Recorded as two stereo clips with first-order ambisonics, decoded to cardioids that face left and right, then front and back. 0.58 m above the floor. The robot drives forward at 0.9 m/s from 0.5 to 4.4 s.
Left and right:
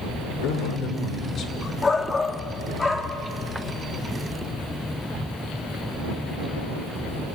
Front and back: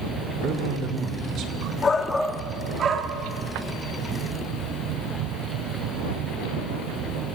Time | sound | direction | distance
0.4 | a man speaking | 125° left | 2 m
1.8 | a shout | 35° left | 1.0 m